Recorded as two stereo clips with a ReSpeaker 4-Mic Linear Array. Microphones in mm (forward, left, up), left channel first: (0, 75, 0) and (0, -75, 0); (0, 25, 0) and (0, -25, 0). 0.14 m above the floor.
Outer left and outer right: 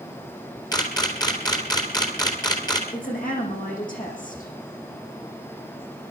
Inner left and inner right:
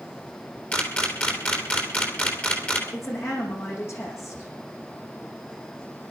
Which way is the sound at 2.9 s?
60° left (ahead or behind).